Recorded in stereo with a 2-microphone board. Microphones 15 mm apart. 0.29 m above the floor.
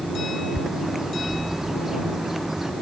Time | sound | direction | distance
0.6 | a bird | 35° right (ahead or behind) | ?